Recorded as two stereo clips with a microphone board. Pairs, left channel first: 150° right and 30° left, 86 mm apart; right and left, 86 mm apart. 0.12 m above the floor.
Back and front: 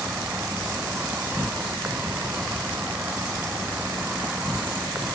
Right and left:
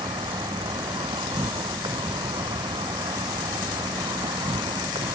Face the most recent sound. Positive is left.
turn(degrees=105)